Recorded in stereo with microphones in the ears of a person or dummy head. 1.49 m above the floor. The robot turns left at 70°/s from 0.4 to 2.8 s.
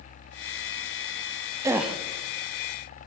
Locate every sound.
1.6 s a gasp: 15° right (ahead or behind), 0.5 m; by 2.0 s 5° left (ahead or behind), 0.5 m